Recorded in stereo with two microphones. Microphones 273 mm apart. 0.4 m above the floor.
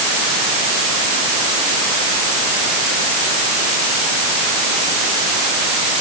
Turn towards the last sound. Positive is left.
No sound to turn to.